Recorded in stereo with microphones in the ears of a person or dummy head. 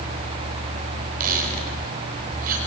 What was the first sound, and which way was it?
A squeak, 45° right (ahead or behind).